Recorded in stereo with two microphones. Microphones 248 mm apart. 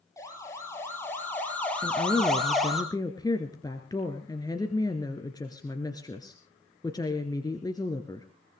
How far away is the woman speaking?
About 1.8 m.